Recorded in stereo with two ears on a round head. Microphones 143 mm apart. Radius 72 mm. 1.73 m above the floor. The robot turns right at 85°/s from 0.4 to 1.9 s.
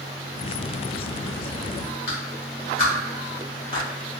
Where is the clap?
60° left (ahead or behind), 1.7 m.